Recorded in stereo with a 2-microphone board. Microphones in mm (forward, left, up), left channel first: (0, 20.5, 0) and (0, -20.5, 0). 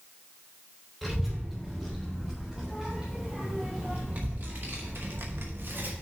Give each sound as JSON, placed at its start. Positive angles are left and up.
{"t": 1.0, "sound": "a child speaking", "side_deg": 0, "distance_m": 3.0}